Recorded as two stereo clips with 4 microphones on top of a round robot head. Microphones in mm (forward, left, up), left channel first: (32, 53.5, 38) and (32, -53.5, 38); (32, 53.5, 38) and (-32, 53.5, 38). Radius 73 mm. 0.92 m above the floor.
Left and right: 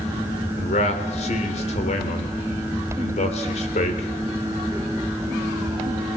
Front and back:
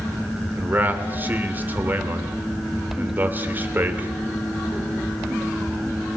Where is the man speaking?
120° left, 3 m.